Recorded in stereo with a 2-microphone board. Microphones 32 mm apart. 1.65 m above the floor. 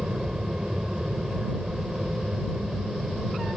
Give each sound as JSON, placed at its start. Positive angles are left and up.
{"t": 0.0, "sound": "an aircraft", "side_deg": -25}